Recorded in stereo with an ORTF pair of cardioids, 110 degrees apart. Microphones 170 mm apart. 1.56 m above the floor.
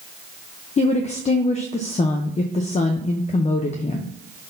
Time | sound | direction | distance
0.8 | a woman speaking | 40° left | 0.8 m